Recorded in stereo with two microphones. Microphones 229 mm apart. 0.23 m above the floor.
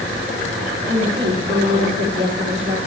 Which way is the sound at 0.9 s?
55° right (ahead or behind).